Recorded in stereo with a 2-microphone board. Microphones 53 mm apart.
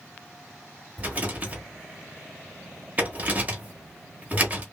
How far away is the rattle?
About 1.2 m.